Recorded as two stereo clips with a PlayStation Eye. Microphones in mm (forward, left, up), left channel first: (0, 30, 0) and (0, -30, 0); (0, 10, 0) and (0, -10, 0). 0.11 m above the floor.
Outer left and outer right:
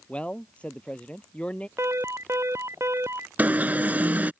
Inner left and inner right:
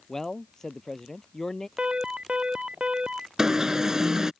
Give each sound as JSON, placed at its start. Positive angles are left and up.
{"t": 0.1, "sound": "a man speaking", "side_deg": 20}
{"t": 1.8, "sound": "an alarm", "side_deg": -50}
{"t": 3.4, "sound": "an alarm", "side_deg": -30}